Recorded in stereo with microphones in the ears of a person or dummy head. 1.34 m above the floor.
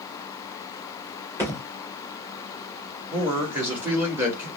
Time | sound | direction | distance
1.4 | a thud | 15° right (ahead or behind) | 2 m
3.1 | a man speaking | 10° right (ahead or behind) | 2 m